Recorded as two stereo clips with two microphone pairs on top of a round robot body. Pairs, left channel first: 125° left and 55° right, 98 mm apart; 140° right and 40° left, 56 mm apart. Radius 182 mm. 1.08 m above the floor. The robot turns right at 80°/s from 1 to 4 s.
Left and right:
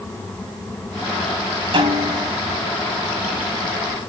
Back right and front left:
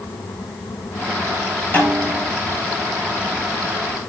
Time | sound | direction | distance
1.7 | a snare drum | 85° right | 8.5 m